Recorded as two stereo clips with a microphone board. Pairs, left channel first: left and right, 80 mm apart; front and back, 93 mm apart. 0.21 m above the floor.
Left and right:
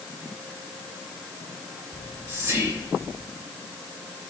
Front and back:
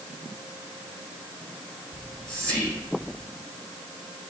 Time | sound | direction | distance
1.9 | whispering | 65° right | 1.4 m